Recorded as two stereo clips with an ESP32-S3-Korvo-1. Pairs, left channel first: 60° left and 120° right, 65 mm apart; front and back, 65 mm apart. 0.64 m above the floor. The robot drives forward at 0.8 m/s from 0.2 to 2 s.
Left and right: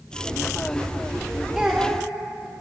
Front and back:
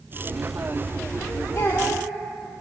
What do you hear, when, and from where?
1.6 s a child speaking: 30° right, 0.9 m; by 2.1 s 50° right, 0.7 m